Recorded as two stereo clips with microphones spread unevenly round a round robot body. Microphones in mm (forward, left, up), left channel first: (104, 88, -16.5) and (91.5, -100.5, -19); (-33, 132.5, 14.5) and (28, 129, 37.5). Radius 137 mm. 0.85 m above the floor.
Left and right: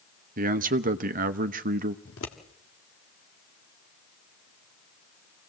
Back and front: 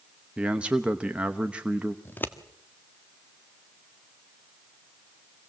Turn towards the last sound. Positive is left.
turn(degrees=125)